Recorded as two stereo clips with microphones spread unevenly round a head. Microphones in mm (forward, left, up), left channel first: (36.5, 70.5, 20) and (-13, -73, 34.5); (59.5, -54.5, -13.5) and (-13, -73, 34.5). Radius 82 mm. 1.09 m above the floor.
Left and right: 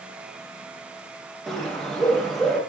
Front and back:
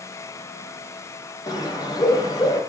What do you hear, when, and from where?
1.5 s a bird: 15° right, 1.4 m